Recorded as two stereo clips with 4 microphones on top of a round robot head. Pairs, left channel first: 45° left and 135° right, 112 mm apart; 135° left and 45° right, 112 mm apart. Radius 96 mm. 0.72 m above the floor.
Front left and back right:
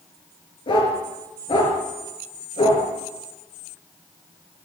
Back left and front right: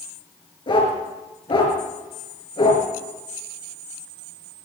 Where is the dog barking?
90° left, 5.5 m.